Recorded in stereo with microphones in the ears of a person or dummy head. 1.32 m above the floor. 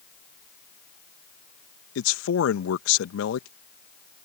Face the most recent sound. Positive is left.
turn(degrees=75)  # may be behind; listen again after turning